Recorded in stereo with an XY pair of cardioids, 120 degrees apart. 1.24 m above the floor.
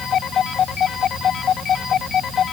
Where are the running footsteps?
No running footsteps in this recording.